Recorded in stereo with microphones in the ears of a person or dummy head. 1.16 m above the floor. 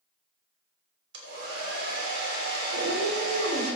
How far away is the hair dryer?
About 3 m.